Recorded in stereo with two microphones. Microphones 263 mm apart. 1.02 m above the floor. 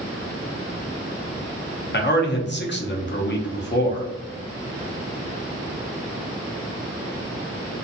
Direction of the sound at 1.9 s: 40° left (ahead or behind).